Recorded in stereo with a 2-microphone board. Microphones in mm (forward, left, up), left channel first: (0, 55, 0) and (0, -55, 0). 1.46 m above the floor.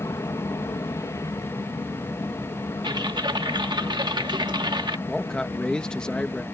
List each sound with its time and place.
0.0 s an aircraft: 30° left (ahead or behind)
2.8 s typing on a keyboard: 45° right (ahead or behind)
5.1 s a man speaking: 10° left (ahead or behind)